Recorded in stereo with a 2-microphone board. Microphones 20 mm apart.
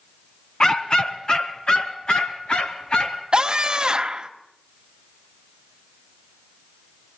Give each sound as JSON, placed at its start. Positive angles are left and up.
{"t": 0.6, "sound": "a dog barking", "side_deg": 30, "distance_m": 1.5}
{"t": 3.3, "sound": "a scream", "side_deg": -45, "distance_m": 1.6}